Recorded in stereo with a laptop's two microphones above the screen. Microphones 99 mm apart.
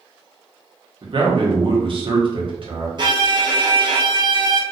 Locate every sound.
1.0 s a man speaking: 50° right (ahead or behind), 0.8 m
3.0 s a violin: 45° right (ahead or behind), 0.6 m